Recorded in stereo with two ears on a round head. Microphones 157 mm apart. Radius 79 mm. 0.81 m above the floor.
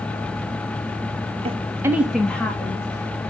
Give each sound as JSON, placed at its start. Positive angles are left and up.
{"t": 1.4, "sound": "a woman speaking", "side_deg": -35, "distance_m": 0.8}